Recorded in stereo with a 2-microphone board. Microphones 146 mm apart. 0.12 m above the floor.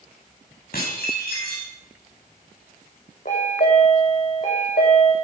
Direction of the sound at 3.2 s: 65° left (ahead or behind).